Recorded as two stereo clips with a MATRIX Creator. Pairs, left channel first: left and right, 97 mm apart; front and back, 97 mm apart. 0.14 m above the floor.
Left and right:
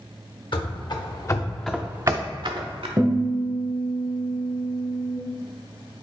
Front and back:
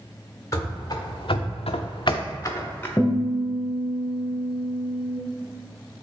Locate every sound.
0.5 s running footsteps: 55° left, 1.1 m; by 2.9 s 70° right, 1.0 m
3.0 s a guitar: 60° right, 1.0 m